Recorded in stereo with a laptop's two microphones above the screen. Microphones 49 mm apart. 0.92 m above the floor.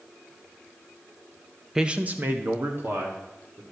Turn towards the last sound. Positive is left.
turn(degrees=-55)  # may be behind; listen again after turning